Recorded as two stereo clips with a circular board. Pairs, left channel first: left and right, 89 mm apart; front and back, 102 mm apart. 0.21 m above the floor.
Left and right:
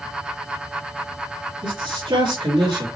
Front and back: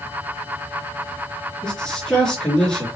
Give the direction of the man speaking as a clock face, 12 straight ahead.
3 o'clock.